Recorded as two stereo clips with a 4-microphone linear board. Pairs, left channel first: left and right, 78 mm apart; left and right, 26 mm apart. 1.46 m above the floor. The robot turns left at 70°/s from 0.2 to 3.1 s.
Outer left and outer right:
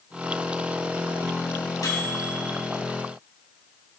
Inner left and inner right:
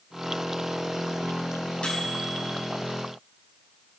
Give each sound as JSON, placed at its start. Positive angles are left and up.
{"t": 1.8, "sound": "a microwave", "azimuth_deg": 45, "distance_m": 7.0}